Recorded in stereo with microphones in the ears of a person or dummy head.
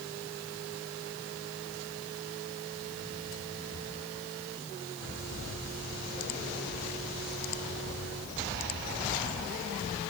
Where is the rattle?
No rattle in this recording.